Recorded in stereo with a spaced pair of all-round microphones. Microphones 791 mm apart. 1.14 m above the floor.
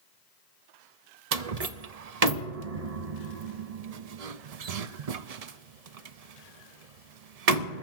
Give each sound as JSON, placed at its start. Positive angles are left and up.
{"t": 1.3, "sound": "a door slam", "side_deg": -50, "distance_m": 0.6}